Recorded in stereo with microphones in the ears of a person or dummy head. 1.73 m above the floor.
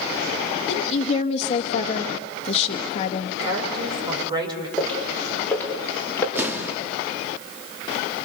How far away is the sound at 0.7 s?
About 2 m.